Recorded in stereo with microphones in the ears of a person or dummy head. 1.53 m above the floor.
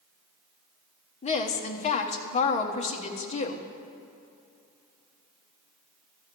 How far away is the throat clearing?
No throat clearing in this recording.